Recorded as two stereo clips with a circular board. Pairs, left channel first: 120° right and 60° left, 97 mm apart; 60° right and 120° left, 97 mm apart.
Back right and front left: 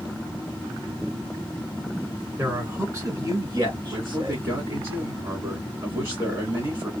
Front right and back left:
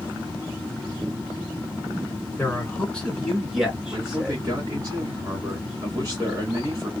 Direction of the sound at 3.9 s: 90° left.